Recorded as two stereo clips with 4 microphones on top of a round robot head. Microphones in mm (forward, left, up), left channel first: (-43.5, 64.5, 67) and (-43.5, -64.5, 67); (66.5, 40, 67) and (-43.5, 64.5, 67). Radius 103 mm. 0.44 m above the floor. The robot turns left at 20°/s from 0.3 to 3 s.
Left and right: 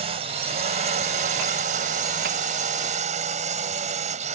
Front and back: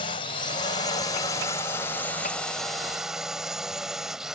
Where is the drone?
50° right; by 4.3 s 105° right.